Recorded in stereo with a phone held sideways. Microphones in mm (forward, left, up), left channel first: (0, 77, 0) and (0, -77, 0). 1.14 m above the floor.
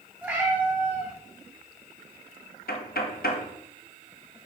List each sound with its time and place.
0.2 s a cat meowing: 10° right (ahead or behind), 2.5 m
2.7 s knocking: 80° left, 1.2 m